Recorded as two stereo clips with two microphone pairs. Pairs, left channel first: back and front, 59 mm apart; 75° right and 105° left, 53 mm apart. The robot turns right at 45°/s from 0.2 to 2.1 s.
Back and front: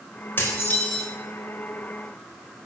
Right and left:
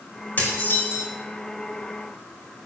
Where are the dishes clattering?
130° right, 4 m; by 1.1 s 95° right, 4 m.